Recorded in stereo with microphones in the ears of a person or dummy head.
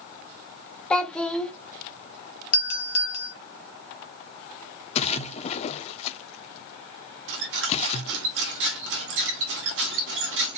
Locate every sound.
0.9 s a child speaking: 10° left (ahead or behind), 0.9 m
2.5 s a doorbell: 50° left (ahead or behind), 1.2 m
5.0 s a splash: 40° left (ahead or behind), 0.7 m
7.3 s a squeak: 55° right (ahead or behind), 1.0 m